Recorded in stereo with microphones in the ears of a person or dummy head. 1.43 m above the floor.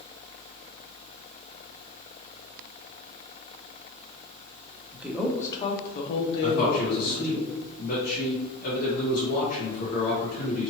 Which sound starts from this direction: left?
A man speaking, at 6.4 s.